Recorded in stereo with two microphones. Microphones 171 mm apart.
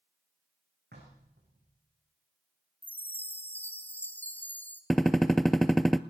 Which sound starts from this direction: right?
Knocking, at 0.9 s.